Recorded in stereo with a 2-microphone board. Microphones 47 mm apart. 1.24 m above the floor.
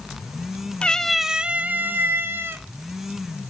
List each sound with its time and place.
0.8 s a cat meowing: 20° left (ahead or behind), 0.6 m; by 2.6 s 50° right (ahead or behind), 1.3 m